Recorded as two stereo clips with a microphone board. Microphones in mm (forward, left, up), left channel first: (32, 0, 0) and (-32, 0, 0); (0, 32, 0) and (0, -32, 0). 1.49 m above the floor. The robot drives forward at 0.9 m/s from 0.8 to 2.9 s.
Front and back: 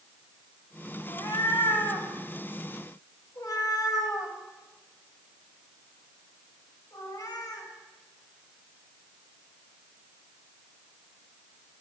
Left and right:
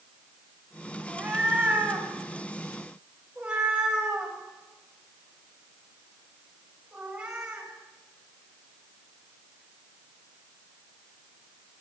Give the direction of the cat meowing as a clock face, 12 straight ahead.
12 o'clock.